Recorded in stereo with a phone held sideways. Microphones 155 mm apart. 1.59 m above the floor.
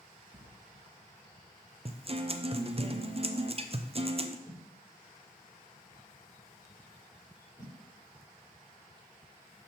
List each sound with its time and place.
0.3 s writing: 40° right (ahead or behind), 1.4 m
1.9 s a guitar: 40° right (ahead or behind), 0.5 m
4.5 s a whoosh: 15° right (ahead or behind), 5 m